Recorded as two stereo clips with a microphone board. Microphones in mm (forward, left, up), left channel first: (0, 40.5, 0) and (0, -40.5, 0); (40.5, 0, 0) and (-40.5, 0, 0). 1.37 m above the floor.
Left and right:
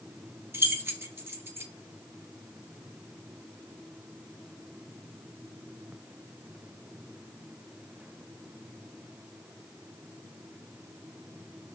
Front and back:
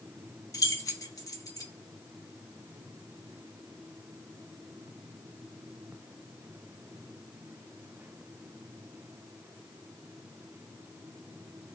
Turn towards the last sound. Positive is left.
turn(degrees=-35)